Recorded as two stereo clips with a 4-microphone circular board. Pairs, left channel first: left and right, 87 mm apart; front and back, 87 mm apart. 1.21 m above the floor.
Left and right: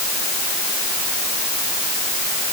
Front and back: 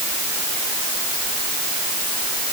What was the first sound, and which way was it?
Only background noise.